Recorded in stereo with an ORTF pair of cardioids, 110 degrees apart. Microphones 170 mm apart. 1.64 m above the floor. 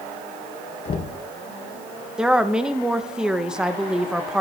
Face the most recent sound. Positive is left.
turn(degrees=-5)